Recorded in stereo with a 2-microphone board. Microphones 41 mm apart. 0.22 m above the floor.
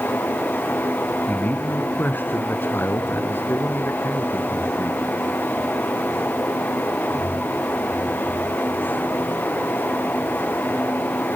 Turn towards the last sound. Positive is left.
turn(degrees=70)  # may be behind; listen again after turning